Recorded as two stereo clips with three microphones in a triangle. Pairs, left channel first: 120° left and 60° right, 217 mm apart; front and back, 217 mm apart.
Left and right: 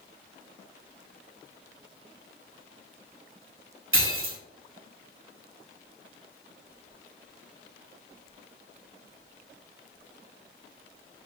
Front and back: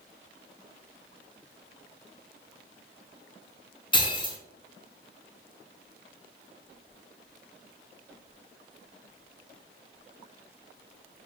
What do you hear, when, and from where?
3.9 s breaking glass: 70° right, 0.6 m